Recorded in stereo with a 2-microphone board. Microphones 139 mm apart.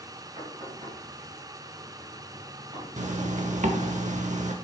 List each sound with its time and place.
0.4 s knocking: 50° right (ahead or behind), 3 m
3.0 s a zipper: 60° right (ahead or behind), 0.8 m